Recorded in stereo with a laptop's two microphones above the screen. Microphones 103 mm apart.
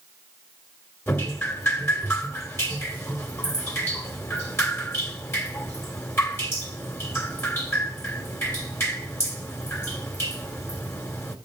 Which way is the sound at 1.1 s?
25° left (ahead or behind).